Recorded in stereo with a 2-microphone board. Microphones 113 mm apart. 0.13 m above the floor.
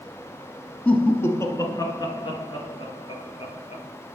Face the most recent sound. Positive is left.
turn(degrees=60)  # may be behind; listen again after turning